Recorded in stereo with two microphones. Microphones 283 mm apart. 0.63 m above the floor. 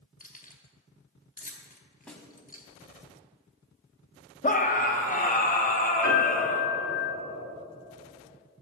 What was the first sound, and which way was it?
Keys jangling, 30° left (ahead or behind).